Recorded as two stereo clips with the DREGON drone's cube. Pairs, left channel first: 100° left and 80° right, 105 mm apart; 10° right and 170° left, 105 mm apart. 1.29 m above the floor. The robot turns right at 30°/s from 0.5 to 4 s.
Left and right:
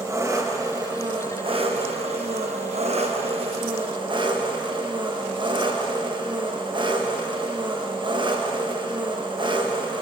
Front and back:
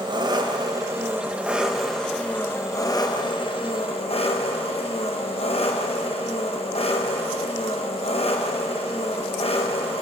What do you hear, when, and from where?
0.0 s an engine running: 140° right, 1.0 m; by 10.0 s 35° right, 1.0 m